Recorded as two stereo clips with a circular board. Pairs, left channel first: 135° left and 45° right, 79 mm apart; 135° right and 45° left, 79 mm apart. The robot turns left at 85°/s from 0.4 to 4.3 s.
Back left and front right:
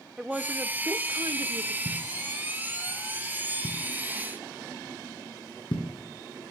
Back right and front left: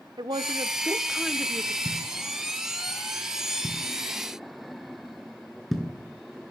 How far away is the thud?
About 5 m.